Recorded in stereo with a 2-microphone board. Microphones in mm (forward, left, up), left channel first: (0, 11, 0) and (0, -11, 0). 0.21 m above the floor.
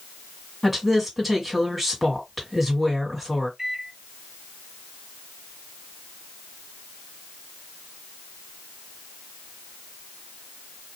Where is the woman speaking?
5° right (ahead or behind), 1.8 m.